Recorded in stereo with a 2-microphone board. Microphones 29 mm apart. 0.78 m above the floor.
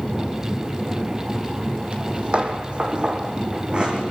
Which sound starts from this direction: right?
Footsteps, at 1.9 s.